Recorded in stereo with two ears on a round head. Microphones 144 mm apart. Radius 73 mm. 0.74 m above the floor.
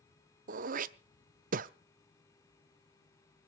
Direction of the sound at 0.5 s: 55° right (ahead or behind).